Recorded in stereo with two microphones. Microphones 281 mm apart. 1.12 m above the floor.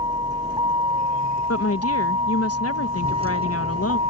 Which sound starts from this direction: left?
A woman speaking, at 1.5 s.